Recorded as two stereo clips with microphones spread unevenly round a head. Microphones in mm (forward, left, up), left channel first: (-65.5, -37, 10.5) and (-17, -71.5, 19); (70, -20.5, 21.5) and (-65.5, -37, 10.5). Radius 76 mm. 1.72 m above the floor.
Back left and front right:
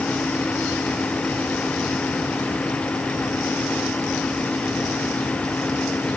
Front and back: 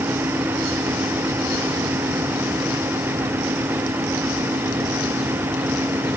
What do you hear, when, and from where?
Only background noise.